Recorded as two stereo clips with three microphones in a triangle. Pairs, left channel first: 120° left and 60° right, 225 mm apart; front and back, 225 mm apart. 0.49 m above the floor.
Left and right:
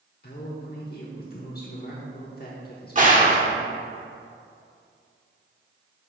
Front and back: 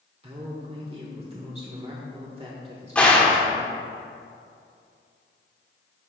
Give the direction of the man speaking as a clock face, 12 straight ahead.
8 o'clock.